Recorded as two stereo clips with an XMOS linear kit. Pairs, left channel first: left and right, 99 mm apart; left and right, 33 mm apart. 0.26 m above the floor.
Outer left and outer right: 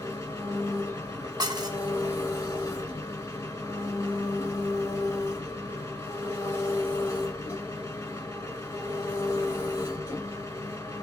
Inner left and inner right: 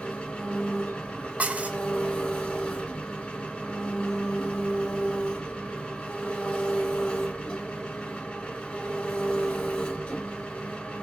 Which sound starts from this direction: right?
Dishes clattering, at 1.4 s.